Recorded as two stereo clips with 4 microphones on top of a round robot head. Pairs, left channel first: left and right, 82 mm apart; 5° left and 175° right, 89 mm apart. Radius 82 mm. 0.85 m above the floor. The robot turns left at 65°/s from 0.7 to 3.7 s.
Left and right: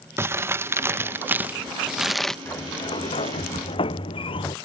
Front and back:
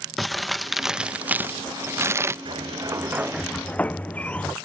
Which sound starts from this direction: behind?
A sliding door, at 2.5 s.